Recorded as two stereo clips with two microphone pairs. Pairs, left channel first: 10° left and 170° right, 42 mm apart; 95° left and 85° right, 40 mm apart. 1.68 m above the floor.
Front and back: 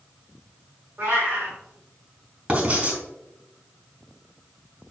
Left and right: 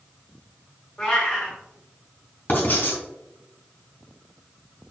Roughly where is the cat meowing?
Behind.